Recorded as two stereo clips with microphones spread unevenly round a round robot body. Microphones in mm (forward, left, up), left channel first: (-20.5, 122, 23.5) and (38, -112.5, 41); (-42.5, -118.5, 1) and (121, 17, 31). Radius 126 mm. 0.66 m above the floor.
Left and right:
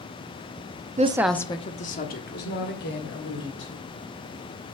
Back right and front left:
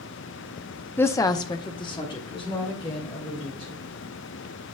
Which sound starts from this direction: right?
A woman speaking, at 1.0 s.